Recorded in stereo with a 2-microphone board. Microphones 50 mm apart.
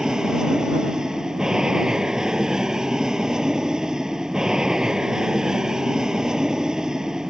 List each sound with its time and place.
0.0 s an aircraft: 15° right (ahead or behind)